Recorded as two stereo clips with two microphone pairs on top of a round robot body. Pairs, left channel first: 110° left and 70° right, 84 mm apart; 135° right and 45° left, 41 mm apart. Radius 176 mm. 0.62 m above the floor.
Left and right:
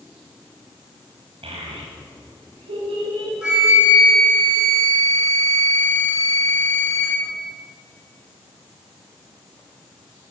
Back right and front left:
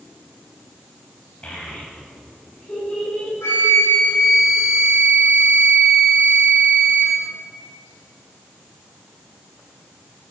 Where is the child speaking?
75° right, 3 m; by 3.3 s 65° right, 5.5 m.